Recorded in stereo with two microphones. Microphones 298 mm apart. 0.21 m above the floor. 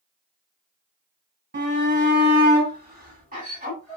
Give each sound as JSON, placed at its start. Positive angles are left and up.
{"t": 1.5, "sound": "a shout", "side_deg": -35, "distance_m": 1.9}